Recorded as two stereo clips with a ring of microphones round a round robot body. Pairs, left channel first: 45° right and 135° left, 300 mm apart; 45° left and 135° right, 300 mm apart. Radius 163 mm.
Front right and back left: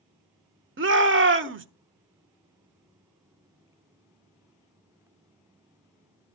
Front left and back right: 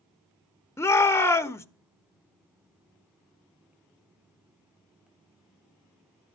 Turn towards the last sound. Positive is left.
turn(degrees=120)